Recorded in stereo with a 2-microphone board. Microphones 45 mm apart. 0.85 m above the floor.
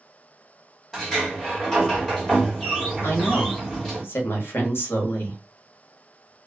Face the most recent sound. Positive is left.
turn(degrees=55)  # may be behind; listen again after turning